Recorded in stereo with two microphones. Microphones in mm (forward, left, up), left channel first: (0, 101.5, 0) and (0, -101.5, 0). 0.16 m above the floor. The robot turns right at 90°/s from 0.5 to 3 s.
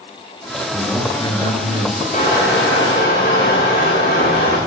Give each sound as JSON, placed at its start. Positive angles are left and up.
{"t": 0.7, "sound": "a man speaking", "azimuth_deg": -20, "distance_m": 2.5}
{"t": 2.1, "sound": "crushing", "azimuth_deg": 35, "distance_m": 8.5}